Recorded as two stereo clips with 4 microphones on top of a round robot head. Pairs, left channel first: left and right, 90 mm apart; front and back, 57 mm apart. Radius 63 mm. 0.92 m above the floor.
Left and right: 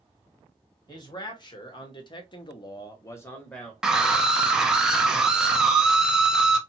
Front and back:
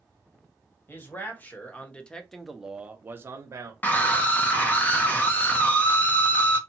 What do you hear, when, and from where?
0.9 s a man speaking: 55° left, 1.4 m; by 3.7 s 170° left, 0.8 m
3.8 s a scream: 15° right, 0.8 m